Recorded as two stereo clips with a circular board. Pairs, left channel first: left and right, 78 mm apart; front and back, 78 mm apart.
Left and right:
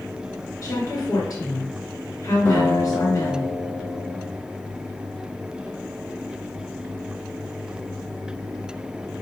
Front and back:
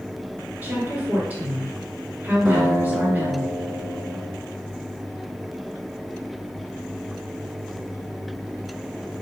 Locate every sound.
0.6 s a woman speaking: 120° left, 1.8 m
2.5 s a guitar: 115° left, 1.7 m